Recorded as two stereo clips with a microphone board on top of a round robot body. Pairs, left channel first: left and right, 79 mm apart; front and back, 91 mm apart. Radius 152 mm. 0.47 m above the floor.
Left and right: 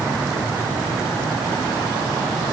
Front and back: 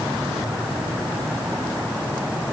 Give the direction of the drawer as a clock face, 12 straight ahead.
I don't hear a drawer.